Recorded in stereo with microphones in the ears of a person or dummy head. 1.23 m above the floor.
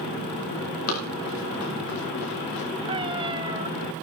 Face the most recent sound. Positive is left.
turn(degrees=-25)  # may be behind; listen again after turning